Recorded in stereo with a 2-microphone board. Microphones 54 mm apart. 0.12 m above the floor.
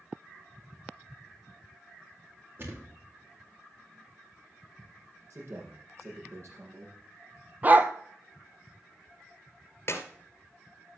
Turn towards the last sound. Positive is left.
turn(degrees=55)  # may be behind; listen again after turning